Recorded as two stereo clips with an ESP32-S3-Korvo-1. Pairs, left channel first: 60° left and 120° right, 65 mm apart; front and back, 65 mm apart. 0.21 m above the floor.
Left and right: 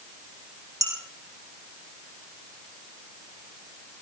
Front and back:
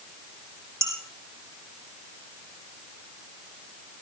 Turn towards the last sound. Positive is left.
turn(degrees=-135)